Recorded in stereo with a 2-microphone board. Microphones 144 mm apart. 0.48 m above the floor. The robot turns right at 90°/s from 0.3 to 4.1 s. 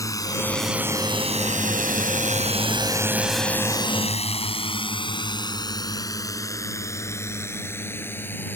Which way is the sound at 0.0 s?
25° left (ahead or behind).